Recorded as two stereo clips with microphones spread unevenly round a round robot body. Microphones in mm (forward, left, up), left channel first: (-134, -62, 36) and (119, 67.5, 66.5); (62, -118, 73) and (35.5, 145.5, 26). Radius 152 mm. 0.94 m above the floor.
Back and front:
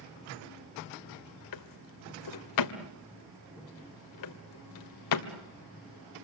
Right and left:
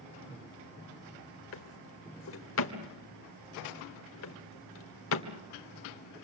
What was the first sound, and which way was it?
A drawer, 130° right.